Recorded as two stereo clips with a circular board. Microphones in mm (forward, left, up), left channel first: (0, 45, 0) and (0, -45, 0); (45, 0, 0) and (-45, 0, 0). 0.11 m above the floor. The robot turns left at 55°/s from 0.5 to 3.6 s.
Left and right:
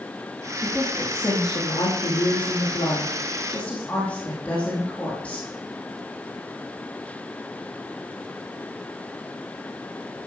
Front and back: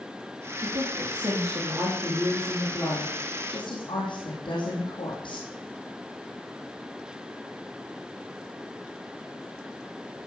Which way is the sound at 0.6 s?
Straight behind.